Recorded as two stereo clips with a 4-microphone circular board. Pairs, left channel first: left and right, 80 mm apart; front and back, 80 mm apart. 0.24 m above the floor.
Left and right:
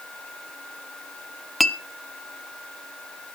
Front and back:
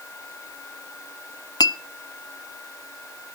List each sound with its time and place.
1.6 s a clink: 5° left, 1.1 m